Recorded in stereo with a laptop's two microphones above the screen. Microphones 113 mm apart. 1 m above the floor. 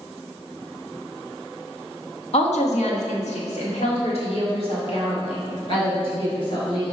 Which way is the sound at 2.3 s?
70° left (ahead or behind).